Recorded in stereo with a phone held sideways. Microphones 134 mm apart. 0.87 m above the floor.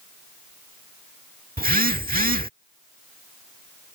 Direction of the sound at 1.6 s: 85° right.